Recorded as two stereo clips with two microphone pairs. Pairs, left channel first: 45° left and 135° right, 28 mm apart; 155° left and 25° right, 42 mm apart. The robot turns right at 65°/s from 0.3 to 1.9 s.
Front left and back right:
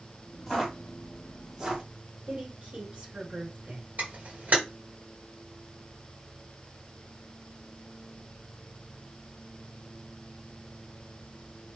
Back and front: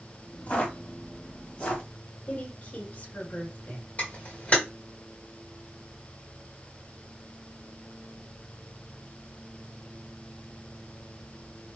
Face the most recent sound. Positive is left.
turn(degrees=-160)